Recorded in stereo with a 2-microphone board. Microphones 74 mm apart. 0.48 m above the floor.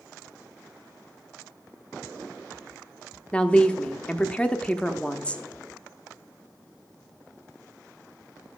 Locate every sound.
3.3 s a woman speaking: 15° left (ahead or behind), 0.7 m